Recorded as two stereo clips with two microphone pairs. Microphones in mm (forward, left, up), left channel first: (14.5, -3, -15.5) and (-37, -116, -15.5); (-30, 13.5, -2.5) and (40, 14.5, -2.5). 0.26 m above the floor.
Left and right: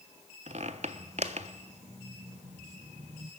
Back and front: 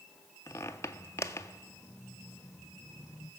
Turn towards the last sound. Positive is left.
turn(degrees=-135)